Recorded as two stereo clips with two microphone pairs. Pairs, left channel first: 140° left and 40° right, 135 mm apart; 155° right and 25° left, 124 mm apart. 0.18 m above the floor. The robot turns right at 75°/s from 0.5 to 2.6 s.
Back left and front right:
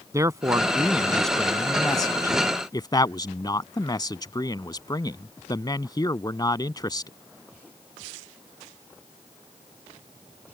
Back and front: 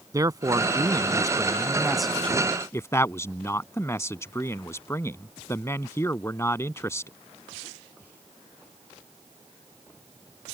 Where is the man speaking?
Straight ahead; by 7.1 s 155° left.